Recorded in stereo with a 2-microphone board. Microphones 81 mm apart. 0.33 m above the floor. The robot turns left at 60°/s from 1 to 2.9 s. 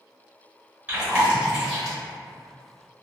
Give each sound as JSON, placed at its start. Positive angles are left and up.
{"t": 0.9, "sound": "chewing", "side_deg": -20, "distance_m": 1.2}